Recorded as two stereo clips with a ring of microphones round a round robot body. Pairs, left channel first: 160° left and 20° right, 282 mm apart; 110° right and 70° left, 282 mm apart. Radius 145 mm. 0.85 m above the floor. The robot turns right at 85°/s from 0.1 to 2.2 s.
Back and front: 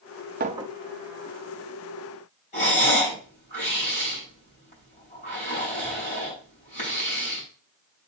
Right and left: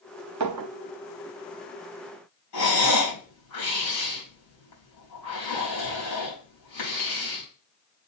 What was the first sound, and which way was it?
A clink, 40° left.